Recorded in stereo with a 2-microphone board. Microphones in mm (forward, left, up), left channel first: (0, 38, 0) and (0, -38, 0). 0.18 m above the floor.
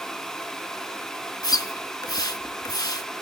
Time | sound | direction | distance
1.4 | a splash | 60° left (ahead or behind) | 0.6 m